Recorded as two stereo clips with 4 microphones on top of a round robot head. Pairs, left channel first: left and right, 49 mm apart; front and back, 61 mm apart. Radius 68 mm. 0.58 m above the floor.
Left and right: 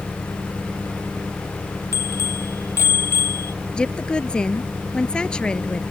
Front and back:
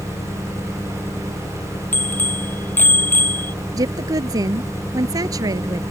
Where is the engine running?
35° left.